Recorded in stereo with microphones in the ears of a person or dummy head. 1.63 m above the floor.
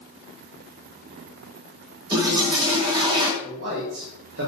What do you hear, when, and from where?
2.1 s a toilet flushing: 25° right (ahead or behind), 2.5 m
3.4 s a man speaking: 75° right (ahead or behind), 3.5 m